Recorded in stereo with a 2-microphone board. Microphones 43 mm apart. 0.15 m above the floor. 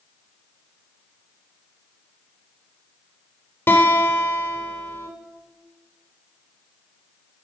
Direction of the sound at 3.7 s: 55° left (ahead or behind).